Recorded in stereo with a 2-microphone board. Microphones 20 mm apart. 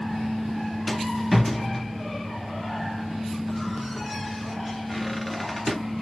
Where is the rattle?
5° left (ahead or behind), 0.8 m.